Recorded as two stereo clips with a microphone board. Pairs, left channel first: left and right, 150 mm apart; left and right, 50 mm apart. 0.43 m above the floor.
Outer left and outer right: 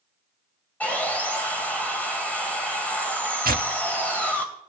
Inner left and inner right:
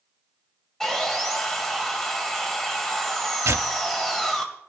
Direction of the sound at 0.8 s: 10° left (ahead or behind).